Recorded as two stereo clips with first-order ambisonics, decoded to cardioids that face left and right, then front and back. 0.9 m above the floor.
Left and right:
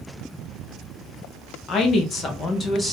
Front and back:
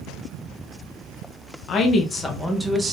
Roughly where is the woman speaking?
Ahead left.